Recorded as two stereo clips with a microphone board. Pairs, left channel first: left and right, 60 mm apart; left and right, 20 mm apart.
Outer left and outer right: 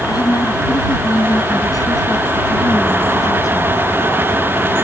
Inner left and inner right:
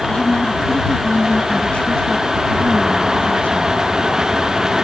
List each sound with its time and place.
0.1 s a woman speaking: 75° left (ahead or behind)